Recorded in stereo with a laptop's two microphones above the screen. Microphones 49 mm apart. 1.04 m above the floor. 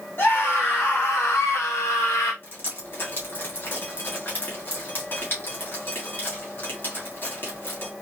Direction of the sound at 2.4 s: 45° left (ahead or behind).